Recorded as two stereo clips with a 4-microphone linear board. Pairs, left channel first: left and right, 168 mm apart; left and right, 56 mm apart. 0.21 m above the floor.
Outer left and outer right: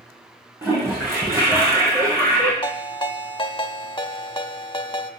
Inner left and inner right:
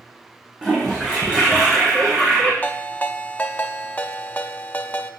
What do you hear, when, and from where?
0.6 s a toilet flushing: 15° right (ahead or behind), 5.5 m
2.6 s a ringtone: 30° left (ahead or behind), 0.7 m